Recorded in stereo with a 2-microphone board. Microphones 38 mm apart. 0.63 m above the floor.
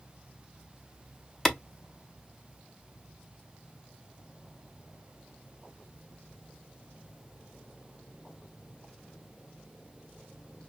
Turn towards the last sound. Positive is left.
turn(degrees=15)  # may be behind; listen again after turning